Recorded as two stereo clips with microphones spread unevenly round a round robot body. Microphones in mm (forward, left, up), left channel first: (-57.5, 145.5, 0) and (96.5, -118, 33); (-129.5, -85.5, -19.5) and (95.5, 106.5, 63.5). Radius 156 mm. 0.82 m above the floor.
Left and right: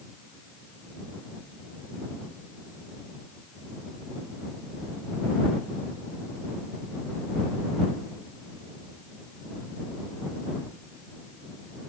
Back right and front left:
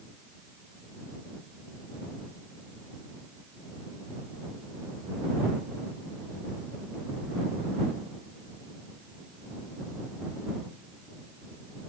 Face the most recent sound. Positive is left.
No sound to turn to.